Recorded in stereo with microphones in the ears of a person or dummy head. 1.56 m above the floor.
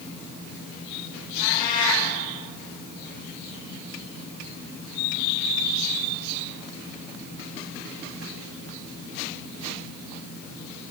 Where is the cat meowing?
40° left (ahead or behind), 6.5 m.